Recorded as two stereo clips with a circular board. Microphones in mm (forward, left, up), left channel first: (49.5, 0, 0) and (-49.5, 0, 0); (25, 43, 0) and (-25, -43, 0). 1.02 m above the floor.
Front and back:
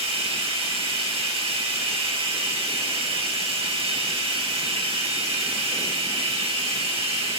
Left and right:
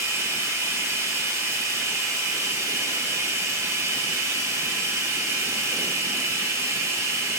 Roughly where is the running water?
Behind.